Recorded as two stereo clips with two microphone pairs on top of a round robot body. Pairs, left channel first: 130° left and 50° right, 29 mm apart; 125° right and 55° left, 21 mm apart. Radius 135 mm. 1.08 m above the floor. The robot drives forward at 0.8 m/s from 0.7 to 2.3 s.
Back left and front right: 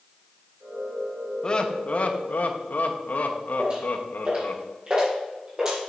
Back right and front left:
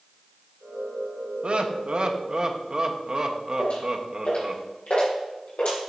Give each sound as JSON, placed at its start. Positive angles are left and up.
{"t": 1.4, "sound": "laughter", "azimuth_deg": 60, "distance_m": 1.1}
{"t": 3.6, "sound": "footsteps", "azimuth_deg": -105, "distance_m": 3.5}